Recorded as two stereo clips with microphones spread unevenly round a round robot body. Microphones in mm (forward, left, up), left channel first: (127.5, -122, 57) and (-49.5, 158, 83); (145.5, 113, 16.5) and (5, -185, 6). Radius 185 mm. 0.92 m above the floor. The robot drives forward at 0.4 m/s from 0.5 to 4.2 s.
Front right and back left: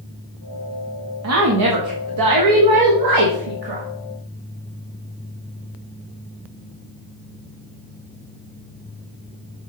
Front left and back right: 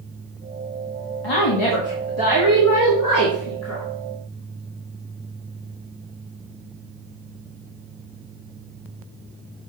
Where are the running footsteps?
No running footsteps in this recording.